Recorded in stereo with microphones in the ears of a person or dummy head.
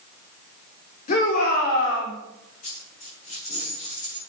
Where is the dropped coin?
45° left (ahead or behind), 7 m.